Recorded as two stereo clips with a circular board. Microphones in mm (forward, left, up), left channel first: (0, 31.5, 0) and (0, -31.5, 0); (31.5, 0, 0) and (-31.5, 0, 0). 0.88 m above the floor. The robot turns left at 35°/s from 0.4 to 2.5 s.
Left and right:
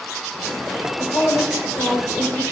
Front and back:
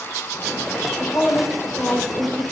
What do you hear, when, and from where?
1.0 s a woman speaking: 110° left, 3 m; by 2.4 s 60° left, 3 m